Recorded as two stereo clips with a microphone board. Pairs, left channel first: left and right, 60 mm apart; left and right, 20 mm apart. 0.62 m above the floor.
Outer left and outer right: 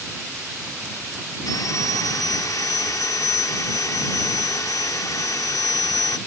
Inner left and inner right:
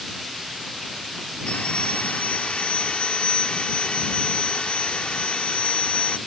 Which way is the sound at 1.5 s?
70° left (ahead or behind).